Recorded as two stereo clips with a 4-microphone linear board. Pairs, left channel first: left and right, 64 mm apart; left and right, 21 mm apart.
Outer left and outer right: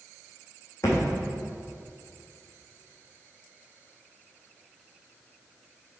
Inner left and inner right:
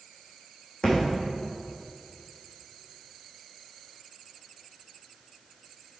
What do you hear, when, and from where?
0.8 s a thud: 45° left (ahead or behind), 2.5 m